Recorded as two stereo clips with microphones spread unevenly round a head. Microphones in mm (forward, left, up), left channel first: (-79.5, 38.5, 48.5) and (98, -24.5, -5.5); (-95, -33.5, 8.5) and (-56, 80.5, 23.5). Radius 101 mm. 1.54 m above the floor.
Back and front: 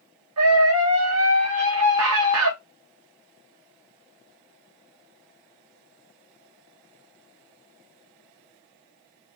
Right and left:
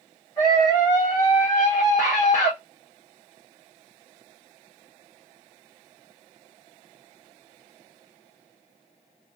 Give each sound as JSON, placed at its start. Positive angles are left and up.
{"t": 0.4, "sound": "a scream", "azimuth_deg": -30, "distance_m": 1.2}